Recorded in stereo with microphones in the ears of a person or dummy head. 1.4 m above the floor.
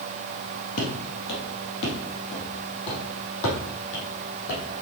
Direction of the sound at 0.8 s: 55° left (ahead or behind).